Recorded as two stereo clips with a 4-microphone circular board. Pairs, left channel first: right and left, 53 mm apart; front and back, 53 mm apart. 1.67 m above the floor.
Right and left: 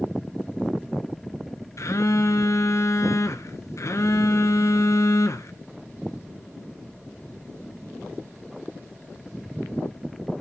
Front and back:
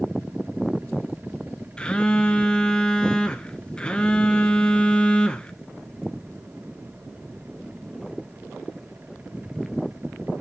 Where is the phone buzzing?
70° right, 1.4 m.